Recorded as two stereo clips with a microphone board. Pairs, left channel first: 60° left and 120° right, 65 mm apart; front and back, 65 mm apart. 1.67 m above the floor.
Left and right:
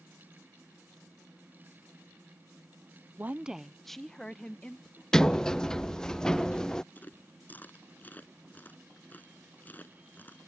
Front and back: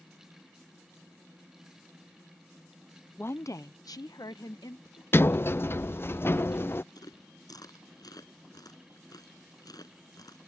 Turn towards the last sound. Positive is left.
turn(degrees=0)